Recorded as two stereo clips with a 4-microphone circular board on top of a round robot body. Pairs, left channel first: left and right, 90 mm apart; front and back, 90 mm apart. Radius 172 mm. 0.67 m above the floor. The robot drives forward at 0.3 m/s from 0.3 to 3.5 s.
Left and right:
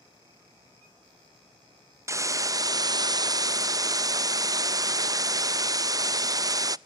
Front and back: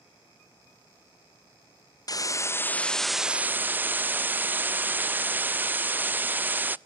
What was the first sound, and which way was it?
A hiss, 40° right.